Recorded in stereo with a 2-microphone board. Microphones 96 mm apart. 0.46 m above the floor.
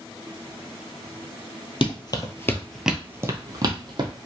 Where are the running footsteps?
55° left (ahead or behind), 0.7 m; by 4.1 s 50° right (ahead or behind), 1.0 m.